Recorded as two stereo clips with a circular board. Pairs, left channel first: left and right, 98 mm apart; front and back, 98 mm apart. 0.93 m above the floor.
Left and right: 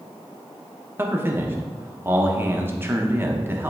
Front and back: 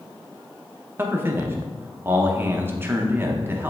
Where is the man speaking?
135° right, 0.9 m.